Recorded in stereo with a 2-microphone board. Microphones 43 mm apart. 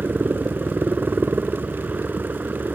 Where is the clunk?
No clunk in this recording.